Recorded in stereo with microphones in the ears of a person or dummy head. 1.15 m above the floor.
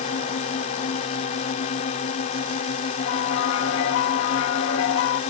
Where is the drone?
35° left (ahead or behind).